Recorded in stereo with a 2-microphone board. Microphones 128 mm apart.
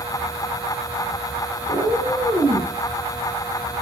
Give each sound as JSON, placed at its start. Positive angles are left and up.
{"t": 1.7, "sound": "a cat meowing", "side_deg": -60, "distance_m": 5.0}